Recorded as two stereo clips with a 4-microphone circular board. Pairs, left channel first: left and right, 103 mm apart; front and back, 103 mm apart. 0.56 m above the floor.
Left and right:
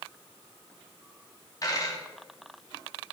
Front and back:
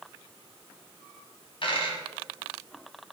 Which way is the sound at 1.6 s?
35° left.